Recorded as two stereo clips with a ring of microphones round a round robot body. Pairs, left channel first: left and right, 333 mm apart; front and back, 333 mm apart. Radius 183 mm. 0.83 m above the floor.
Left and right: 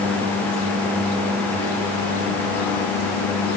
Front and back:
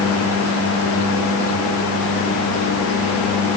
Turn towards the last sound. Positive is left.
No sound to turn to.